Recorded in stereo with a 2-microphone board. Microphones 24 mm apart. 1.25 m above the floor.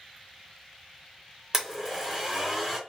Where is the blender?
10° right (ahead or behind), 1.5 m.